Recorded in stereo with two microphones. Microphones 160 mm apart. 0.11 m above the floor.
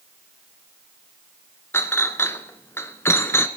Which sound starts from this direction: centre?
A clink, at 1.7 s.